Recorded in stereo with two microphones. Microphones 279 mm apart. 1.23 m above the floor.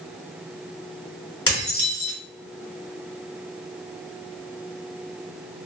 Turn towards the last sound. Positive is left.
turn(degrees=50)  # may be behind; listen again after turning